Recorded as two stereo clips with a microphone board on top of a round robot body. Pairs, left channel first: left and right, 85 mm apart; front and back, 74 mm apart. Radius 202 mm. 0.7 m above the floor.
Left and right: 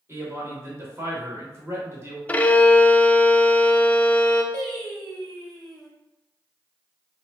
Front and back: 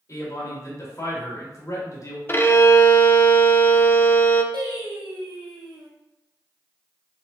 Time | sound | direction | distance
0.1 | a man speaking | 35° right | 1.9 m
2.3 | a violin | 30° left | 0.7 m
4.5 | singing | 175° left | 1.2 m